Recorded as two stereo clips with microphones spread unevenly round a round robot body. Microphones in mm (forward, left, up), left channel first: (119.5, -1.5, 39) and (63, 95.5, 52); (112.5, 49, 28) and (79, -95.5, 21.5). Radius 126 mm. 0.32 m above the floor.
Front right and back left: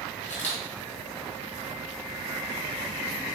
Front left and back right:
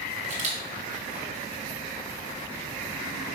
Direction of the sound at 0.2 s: 130° right.